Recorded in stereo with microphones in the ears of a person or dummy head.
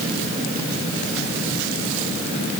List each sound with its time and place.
Only background noise.